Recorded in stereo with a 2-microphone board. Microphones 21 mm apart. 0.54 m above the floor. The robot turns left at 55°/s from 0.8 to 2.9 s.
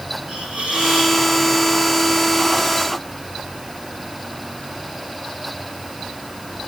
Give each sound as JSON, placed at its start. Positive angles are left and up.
{"t": 0.3, "sound": "a hiss", "side_deg": -65, "distance_m": 4.0}